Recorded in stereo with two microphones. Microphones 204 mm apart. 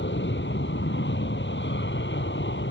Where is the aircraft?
65° left (ahead or behind).